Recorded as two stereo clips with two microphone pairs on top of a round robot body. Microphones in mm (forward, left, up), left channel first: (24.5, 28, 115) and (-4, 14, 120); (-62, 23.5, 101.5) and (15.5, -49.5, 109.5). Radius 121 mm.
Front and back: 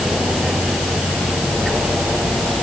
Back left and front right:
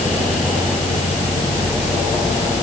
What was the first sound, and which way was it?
Only background noise.